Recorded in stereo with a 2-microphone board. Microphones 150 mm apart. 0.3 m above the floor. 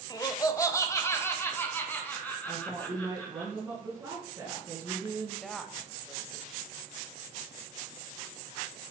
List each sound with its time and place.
0.1 s laughter: 25° left (ahead or behind), 0.9 m; by 3.5 s 10° left (ahead or behind), 3 m
2.5 s a woman speaking: 10° right (ahead or behind), 3 m
5.4 s a woman speaking: centre (ahead or behind), 1.1 m